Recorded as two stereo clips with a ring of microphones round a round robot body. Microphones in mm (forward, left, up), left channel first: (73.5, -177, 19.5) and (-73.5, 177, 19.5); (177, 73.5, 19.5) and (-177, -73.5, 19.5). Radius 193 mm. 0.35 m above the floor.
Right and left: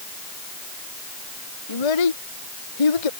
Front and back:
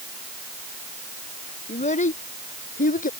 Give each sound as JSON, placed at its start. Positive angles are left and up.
{"t": 1.7, "sound": "a child speaking", "azimuth_deg": -50}